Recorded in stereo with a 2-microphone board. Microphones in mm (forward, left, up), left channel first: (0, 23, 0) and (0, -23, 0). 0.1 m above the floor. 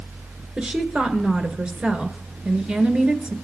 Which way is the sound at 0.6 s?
25° right (ahead or behind).